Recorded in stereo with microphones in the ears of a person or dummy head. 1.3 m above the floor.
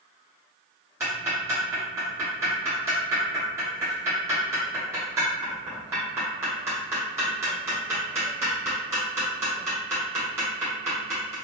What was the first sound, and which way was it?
Ticking, 15° right (ahead or behind).